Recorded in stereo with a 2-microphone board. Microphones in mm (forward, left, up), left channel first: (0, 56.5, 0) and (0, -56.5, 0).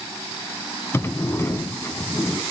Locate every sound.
0.9 s a sliding door: 25° left (ahead or behind), 0.6 m